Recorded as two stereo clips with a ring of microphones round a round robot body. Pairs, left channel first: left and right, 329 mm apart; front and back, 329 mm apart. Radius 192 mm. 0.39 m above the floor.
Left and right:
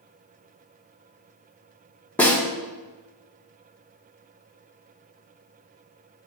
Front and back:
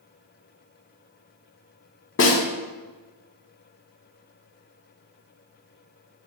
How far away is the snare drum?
About 1.4 m.